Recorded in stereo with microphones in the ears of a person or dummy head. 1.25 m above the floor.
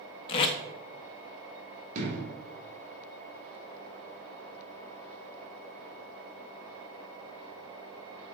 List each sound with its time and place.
0.3 s tape being pulled: 25° left (ahead or behind), 0.5 m
1.9 s an explosion: 40° right (ahead or behind), 2.5 m